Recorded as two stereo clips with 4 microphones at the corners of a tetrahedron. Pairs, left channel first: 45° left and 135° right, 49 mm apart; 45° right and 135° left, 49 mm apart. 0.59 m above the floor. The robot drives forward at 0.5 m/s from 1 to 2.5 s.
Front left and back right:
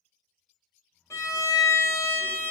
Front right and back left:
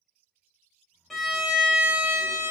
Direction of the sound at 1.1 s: 40° left.